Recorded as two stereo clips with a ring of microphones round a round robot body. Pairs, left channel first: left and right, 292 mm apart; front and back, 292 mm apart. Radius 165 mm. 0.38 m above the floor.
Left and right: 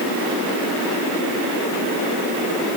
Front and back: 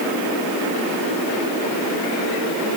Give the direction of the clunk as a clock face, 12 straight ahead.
I don't hear a clunk.